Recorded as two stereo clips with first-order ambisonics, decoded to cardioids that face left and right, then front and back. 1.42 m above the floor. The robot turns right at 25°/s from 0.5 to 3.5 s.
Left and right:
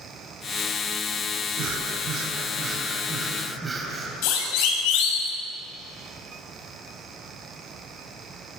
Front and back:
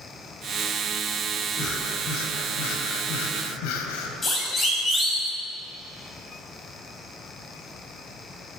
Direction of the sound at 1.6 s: 55° right.